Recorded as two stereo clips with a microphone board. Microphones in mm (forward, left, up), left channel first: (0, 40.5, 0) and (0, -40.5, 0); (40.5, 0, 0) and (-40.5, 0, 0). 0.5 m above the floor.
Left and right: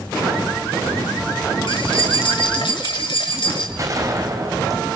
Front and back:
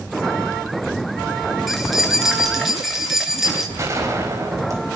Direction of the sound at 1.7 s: 90° left.